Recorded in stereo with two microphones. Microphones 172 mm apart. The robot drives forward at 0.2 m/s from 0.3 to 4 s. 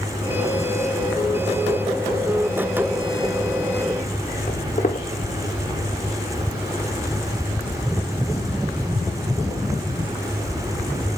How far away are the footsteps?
About 1.7 m.